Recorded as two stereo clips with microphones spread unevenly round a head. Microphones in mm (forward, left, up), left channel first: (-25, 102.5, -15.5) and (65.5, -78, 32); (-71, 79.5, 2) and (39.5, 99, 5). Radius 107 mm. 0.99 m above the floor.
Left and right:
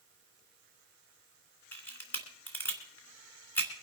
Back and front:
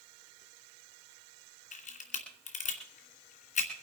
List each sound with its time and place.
1.7 s a camera shutter: 160° right, 2.5 m